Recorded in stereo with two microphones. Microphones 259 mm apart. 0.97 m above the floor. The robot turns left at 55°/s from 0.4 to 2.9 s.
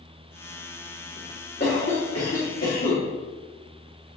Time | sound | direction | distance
1.6 | a cough | 140° left | 2.0 m